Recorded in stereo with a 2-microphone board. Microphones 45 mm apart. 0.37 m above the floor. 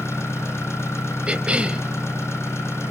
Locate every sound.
0.0 s an engine running: 80° left, 4.5 m
1.3 s a cough: 25° right (ahead or behind), 2 m